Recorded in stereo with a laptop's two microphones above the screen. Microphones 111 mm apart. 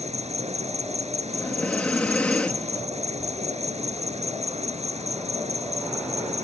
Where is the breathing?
15° left (ahead or behind).